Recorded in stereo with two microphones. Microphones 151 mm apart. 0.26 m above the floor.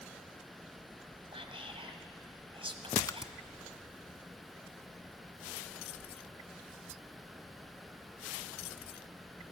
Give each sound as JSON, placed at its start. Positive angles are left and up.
{"t": 1.3, "sound": "whispering", "side_deg": -40, "distance_m": 1.7}
{"t": 3.0, "sound": "a splash", "side_deg": 25, "distance_m": 0.6}